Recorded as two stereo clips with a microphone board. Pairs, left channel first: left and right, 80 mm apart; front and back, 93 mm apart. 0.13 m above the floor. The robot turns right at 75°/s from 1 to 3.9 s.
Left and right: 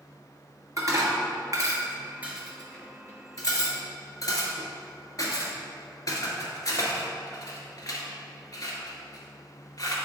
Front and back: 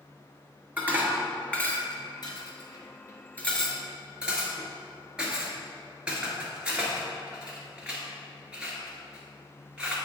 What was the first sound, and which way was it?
Dishes clattering, 115° right.